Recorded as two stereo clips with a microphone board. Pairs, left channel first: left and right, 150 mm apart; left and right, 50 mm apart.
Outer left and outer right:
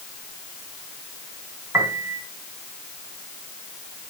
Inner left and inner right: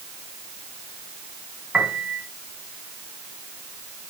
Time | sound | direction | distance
1.7 | a piano | 20° right (ahead or behind) | 2.5 m